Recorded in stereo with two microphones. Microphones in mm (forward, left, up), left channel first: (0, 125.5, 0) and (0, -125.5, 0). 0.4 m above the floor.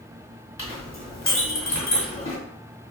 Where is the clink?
55° left (ahead or behind), 1.6 m.